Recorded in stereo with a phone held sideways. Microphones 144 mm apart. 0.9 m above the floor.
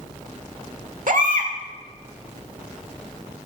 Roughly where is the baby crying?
Right.